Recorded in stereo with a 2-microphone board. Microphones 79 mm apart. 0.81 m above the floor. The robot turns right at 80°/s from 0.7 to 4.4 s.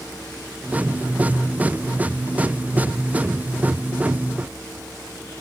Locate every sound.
Only background noise.